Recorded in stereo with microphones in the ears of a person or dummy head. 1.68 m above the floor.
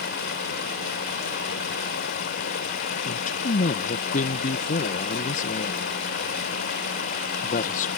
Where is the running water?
65° left (ahead or behind).